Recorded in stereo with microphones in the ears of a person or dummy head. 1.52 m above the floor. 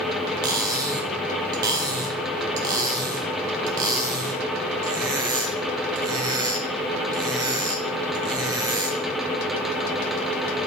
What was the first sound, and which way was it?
Cutlery clinking, 25° right (ahead or behind).